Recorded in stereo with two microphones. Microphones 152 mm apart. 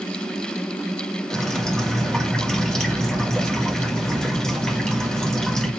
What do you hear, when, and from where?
1.3 s dripping: 5° left (ahead or behind), 1.4 m